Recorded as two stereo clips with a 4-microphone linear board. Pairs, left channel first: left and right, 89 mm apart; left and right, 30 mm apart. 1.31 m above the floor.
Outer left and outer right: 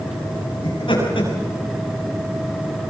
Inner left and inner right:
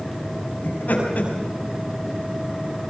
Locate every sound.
0.6 s laughter: 65° left (ahead or behind), 8 m